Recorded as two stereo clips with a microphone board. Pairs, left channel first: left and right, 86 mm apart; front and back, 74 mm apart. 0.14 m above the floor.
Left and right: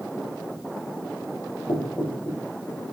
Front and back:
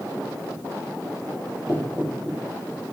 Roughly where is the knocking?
Ahead left.